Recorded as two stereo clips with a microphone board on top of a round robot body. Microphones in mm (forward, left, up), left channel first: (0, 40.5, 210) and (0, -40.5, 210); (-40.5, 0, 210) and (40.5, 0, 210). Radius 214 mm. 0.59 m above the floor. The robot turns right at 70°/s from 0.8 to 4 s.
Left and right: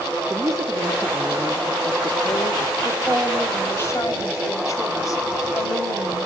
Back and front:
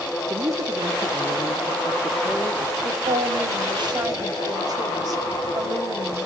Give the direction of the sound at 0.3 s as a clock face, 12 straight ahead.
1 o'clock.